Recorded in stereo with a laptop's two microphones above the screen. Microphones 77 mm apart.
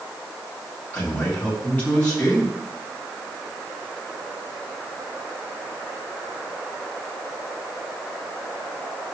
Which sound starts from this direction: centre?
A man speaking, at 0.9 s.